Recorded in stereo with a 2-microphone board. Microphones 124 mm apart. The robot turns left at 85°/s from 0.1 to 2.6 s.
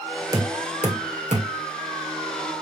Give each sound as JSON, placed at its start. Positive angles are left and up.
{"t": 0.3, "sound": "knocking", "side_deg": -30, "distance_m": 1.7}